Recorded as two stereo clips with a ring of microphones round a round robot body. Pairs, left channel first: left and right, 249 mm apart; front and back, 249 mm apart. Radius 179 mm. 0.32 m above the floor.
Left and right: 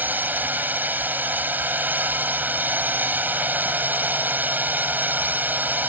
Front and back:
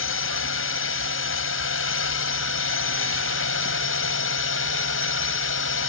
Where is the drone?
10° right.